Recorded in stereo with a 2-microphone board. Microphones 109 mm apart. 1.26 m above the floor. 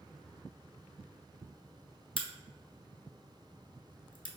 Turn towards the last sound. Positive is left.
turn(degrees=50)  # may be behind; listen again after turning